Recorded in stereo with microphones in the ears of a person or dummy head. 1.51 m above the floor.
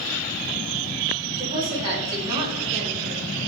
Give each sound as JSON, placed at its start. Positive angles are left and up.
{"t": 1.4, "sound": "a woman speaking", "side_deg": -30, "distance_m": 3.0}